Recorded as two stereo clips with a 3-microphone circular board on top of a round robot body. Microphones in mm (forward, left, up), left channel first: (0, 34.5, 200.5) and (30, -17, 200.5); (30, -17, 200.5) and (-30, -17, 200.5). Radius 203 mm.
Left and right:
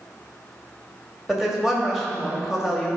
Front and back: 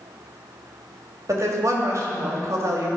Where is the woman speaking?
145° right, 2 m.